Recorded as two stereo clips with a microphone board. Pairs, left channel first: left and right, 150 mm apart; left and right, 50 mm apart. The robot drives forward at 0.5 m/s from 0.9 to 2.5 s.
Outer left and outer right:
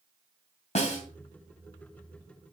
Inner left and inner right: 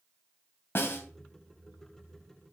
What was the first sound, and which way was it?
A snare drum, 55° left (ahead or behind).